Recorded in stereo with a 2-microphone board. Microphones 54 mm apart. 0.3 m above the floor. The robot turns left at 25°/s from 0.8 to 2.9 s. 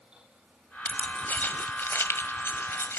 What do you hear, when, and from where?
0.8 s keys jangling: 25° left (ahead or behind), 1.3 m; by 3.0 s 50° left (ahead or behind), 1.3 m